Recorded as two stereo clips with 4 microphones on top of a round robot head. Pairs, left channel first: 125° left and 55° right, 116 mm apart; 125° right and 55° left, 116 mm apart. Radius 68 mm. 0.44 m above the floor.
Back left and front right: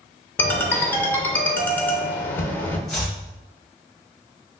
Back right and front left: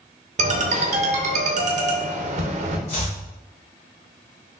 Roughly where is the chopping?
Behind right.